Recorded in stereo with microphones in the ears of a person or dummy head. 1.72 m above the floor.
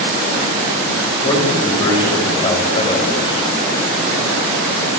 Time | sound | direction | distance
1.2 | a man speaking | 25° left (ahead or behind) | 8 m